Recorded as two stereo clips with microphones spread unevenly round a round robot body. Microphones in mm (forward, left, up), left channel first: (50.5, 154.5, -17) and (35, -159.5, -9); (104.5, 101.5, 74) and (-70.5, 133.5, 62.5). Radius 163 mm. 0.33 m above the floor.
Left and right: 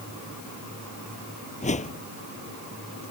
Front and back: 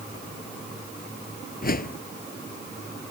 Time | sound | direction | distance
1.6 | a whoosh | 20° left | ?